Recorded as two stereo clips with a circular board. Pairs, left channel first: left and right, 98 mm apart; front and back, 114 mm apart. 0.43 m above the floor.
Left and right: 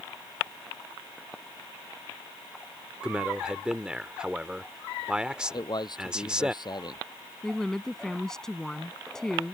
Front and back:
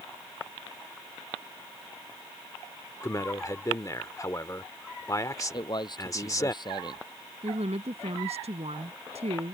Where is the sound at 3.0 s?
15° right.